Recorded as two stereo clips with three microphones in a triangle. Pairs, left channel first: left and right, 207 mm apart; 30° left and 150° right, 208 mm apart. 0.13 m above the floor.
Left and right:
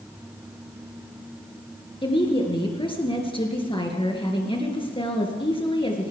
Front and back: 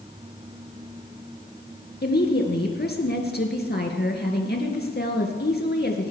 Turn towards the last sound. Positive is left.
turn(degrees=35)